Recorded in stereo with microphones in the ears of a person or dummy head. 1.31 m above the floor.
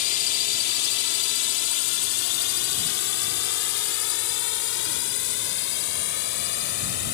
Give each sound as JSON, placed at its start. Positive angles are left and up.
{"t": 0.0, "sound": "a drone", "side_deg": 45}